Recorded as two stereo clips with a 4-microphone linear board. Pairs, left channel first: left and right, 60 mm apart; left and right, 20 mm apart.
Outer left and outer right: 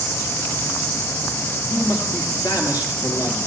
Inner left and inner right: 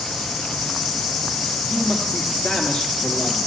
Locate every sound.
1.7 s a man speaking: 65° left (ahead or behind), 4 m